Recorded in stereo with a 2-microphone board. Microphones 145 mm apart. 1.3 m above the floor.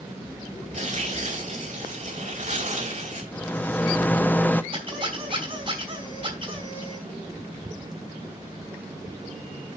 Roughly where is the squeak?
Right.